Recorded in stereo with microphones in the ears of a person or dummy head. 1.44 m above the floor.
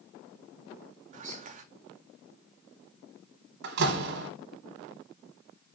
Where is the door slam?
65° right (ahead or behind), 1.0 m.